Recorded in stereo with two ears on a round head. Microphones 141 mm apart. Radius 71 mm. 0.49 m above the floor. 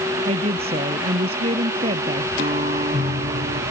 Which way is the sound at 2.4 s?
40° right (ahead or behind).